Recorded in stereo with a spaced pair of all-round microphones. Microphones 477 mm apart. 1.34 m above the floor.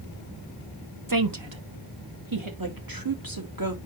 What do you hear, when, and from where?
1.1 s a woman speaking: 40° right (ahead or behind), 1.2 m; by 2.5 s 80° right, 2.5 m
2.6 s a woman speaking: 45° right (ahead or behind), 2.5 m